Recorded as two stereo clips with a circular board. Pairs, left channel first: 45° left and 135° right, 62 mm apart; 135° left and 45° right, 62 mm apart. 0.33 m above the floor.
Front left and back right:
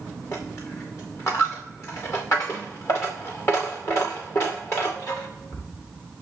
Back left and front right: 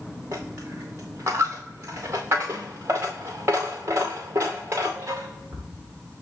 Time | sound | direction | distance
0.3 | a dropped coin | straight ahead | 2.5 m